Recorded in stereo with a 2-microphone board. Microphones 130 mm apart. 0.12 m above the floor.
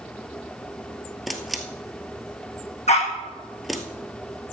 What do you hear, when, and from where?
1.3 s a camera shutter: centre (ahead or behind), 1.6 m
2.9 s a dog barking: 55° left (ahead or behind), 3 m